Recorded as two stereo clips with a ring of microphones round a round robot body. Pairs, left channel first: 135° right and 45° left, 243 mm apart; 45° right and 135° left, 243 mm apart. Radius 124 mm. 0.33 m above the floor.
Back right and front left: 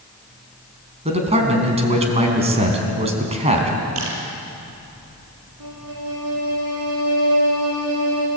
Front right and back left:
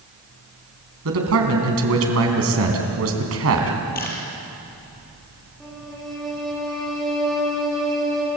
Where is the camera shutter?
10° left, 4.5 m.